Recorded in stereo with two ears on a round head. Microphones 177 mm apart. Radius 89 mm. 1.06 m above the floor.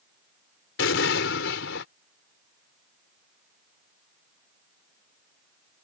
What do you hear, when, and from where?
0.8 s an explosion: 70° left (ahead or behind)